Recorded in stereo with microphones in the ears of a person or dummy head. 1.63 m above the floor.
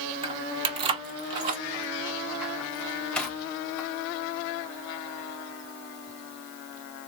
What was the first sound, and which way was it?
Keys jangling, 30° right (ahead or behind).